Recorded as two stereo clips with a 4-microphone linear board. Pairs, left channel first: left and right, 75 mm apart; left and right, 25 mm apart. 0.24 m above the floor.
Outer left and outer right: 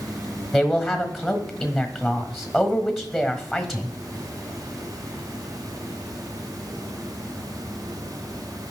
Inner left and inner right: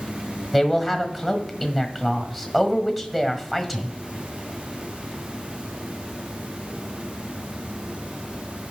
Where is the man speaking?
Centre (ahead or behind), 1.2 m.